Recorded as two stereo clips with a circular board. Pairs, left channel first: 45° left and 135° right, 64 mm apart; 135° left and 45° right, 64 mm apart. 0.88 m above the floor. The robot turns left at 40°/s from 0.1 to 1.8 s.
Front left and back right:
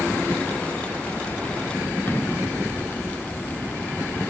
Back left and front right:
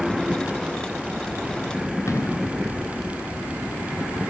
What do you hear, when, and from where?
2.1 s an explosion: 100° left, 2.5 m